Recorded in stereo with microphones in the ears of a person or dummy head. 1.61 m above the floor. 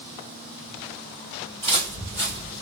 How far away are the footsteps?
About 1.6 m.